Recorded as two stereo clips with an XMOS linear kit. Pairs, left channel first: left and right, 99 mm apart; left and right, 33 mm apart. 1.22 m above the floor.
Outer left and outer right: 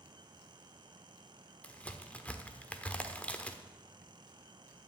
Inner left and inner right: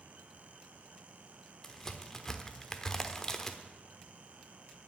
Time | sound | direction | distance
1.6 | a crack | 15° left (ahead or behind) | 1.0 m